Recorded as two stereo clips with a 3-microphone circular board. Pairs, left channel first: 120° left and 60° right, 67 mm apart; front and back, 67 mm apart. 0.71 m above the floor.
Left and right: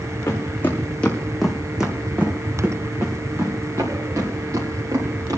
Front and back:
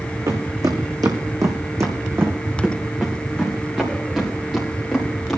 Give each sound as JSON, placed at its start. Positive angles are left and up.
{"t": 0.3, "sound": "footsteps", "azimuth_deg": 170, "distance_m": 2.5}